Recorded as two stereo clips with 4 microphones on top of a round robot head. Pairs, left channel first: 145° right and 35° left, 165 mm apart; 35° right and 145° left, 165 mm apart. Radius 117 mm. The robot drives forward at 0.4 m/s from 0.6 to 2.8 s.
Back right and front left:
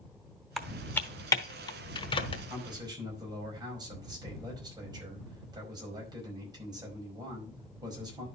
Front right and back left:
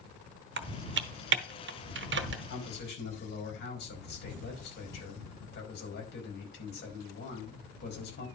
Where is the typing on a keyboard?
125° left, 0.6 m; by 2.4 s 155° left, 1.2 m.